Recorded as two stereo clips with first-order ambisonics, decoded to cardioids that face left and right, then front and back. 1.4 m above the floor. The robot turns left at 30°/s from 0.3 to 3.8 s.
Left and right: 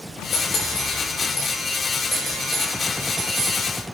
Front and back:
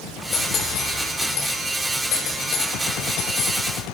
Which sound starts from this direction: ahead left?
Cutlery clinking, at 0.3 s.